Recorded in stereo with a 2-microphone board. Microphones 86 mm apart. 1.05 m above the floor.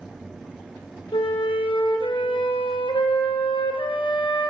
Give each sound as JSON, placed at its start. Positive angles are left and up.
{"t": 1.1, "sound": "a flute", "side_deg": 85, "distance_m": 0.7}